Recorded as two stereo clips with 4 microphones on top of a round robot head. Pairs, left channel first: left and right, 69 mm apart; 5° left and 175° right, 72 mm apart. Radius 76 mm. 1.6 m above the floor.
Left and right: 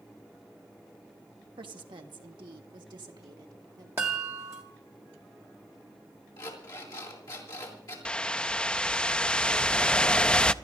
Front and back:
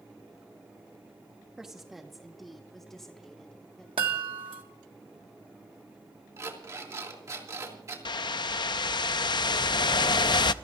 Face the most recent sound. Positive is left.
turn(degrees=15)